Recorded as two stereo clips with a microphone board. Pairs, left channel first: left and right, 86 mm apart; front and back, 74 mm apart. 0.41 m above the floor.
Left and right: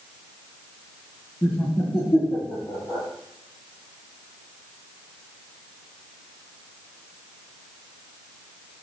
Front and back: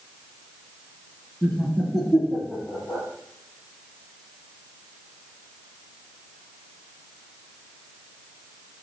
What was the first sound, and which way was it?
Laughter, 80° left.